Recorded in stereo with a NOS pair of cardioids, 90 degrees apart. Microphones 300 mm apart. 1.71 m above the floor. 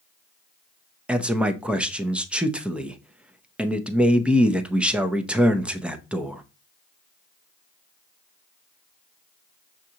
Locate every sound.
1.1 s a man speaking: 5° right, 0.7 m